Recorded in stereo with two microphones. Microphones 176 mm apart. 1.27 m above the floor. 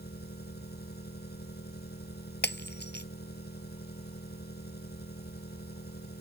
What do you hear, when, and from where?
0.0 s an engine running: 65° left (ahead or behind)
2.4 s breaking glass: 75° left (ahead or behind)